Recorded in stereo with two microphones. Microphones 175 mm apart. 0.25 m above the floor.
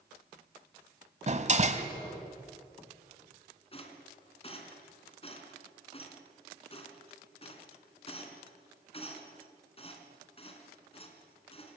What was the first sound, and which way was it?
A door slam, 45° right (ahead or behind).